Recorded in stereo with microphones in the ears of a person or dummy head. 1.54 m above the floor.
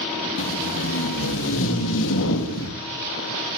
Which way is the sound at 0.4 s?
70° left (ahead or behind).